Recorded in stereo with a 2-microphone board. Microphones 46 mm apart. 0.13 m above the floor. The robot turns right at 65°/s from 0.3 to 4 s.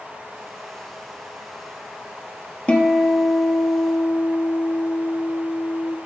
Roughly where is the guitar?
Ahead left.